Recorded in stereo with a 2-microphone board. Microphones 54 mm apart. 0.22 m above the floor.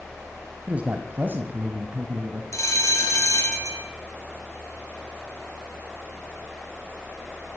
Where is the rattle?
I don't hear a rattle.